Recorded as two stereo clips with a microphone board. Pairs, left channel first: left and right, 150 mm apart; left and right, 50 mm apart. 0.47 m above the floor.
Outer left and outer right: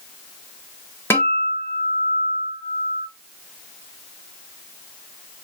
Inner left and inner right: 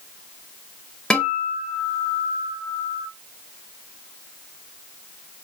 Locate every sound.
1.1 s a guitar: 15° left (ahead or behind), 0.6 m